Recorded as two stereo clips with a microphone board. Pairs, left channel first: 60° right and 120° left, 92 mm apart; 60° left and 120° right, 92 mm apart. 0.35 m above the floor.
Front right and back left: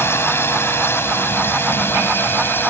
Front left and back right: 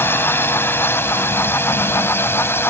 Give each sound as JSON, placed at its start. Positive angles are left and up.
{"t": 0.0, "sound": "a drone", "azimuth_deg": 0}